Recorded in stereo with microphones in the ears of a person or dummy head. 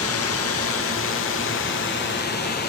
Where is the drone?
65° left (ahead or behind); by 2.7 s 50° left (ahead or behind).